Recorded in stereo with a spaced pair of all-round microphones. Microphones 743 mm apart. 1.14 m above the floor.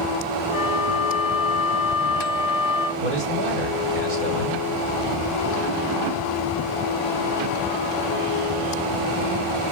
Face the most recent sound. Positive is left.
turn(degrees=-80)